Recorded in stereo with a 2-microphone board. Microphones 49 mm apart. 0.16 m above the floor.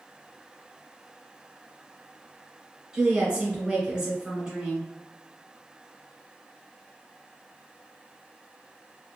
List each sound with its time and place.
2.9 s a woman speaking: 15° right (ahead or behind), 1.0 m